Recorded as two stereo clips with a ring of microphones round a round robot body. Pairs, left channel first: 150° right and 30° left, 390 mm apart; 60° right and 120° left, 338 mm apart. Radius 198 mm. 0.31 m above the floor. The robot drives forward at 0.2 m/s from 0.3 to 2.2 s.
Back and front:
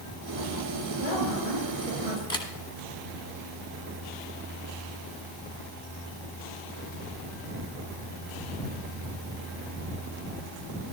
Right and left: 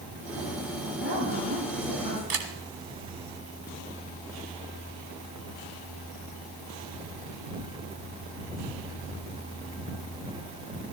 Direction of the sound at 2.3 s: 130° left.